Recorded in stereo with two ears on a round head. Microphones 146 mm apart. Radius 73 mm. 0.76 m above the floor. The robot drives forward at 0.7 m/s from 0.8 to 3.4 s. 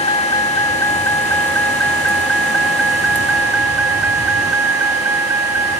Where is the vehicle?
25° left (ahead or behind); by 5.8 s 15° right (ahead or behind).